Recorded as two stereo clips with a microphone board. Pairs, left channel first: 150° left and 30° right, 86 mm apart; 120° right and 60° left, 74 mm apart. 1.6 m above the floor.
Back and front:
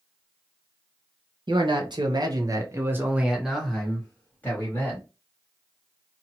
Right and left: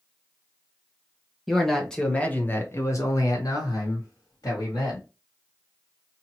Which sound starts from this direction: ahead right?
A man speaking, at 1.5 s.